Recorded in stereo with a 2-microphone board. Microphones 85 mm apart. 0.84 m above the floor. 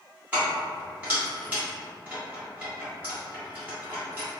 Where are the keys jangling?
20° right (ahead or behind), 1.5 m.